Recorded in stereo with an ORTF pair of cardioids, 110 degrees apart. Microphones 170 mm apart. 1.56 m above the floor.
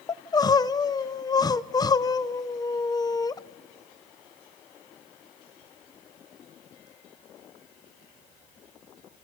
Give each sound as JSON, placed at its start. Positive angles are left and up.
{"t": 0.1, "sound": "crying", "azimuth_deg": 25, "distance_m": 0.8}